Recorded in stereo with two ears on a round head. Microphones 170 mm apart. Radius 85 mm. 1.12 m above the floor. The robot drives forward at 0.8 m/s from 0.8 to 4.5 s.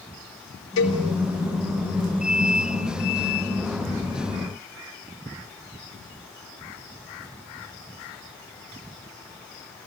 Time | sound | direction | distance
0.8 | a cowbell | 75° left (ahead or behind) | 6 m